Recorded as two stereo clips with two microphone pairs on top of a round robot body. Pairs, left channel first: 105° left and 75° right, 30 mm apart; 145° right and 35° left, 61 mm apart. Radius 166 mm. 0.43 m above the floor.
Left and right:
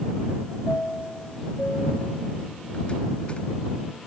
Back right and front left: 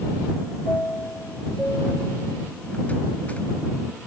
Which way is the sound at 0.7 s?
155° left.